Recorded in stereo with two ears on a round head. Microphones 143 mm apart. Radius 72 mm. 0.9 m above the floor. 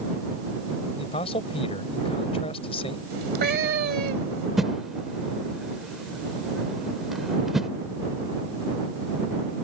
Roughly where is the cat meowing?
Right.